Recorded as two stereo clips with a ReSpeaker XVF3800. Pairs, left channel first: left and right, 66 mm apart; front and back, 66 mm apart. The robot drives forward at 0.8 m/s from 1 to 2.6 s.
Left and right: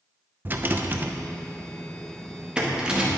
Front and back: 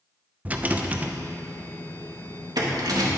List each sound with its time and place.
0.5 s a rattle: 125° right, 0.7 m; by 3.1 s 165° right, 1.7 m